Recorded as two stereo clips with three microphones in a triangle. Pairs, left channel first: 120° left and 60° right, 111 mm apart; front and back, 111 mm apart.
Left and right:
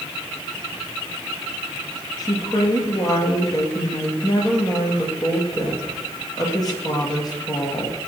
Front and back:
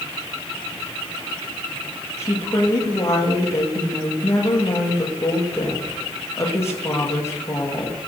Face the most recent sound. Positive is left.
turn(degrees=65)